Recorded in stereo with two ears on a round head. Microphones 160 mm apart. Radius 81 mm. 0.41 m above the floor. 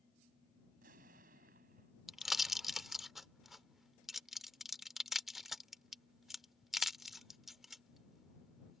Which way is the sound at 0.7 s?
50° right (ahead or behind).